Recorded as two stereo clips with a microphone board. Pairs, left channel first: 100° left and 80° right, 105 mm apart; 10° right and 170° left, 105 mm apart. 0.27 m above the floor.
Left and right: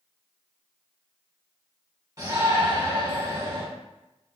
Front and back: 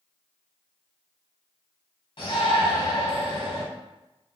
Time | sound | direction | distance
2.2 | a shout | 35° right | 1.9 m